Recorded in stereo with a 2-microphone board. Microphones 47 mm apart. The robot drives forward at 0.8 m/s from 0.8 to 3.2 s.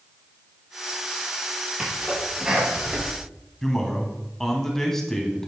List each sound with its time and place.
1.8 s a sneeze: 20° right (ahead or behind), 7 m
3.6 s a man speaking: 5° left (ahead or behind), 2.5 m